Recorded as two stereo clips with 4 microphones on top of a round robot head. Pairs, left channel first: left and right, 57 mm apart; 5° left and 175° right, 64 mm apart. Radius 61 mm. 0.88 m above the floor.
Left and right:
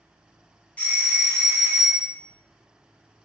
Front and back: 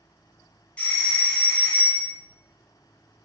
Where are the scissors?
I don't hear scissors.